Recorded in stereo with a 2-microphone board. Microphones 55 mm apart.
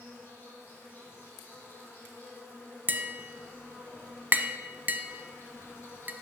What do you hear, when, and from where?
0.0 s an insect: 45° left (ahead or behind), 2.5 m
2.9 s tapping: 40° right (ahead or behind), 0.5 m